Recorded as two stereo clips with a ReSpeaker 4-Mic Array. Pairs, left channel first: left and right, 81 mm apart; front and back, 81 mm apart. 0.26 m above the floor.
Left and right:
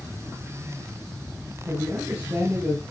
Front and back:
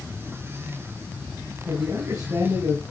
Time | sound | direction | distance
1.7 | a man speaking | 145° right | 2.5 m